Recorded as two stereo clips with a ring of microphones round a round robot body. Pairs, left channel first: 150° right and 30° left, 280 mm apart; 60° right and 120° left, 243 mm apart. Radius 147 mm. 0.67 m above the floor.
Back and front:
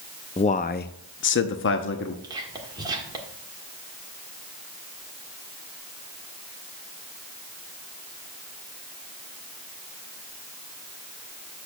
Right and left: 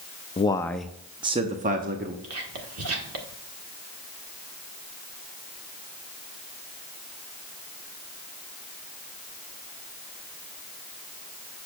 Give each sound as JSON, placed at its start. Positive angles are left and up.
{"t": 0.4, "sound": "a man speaking", "azimuth_deg": -100, "distance_m": 0.6}
{"t": 2.2, "sound": "whispering", "azimuth_deg": 105, "distance_m": 1.8}